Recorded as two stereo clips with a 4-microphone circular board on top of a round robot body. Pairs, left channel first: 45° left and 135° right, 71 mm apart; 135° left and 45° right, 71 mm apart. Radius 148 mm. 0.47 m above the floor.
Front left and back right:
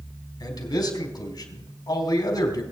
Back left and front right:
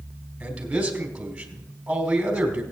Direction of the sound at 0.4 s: 30° left.